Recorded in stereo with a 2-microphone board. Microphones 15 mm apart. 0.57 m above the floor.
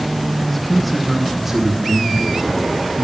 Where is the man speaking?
15° left (ahead or behind), 0.9 m; by 3.0 s 45° right (ahead or behind), 1.5 m.